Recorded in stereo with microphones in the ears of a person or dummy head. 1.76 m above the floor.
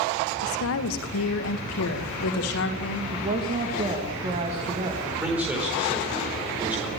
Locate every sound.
0.4 s a woman speaking: 85° left, 1.6 m; by 3.0 s 65° left (ahead or behind), 3.5 m
3.1 s a woman speaking: 35° right (ahead or behind), 3 m
5.0 s a man speaking: 10° right (ahead or behind), 5 m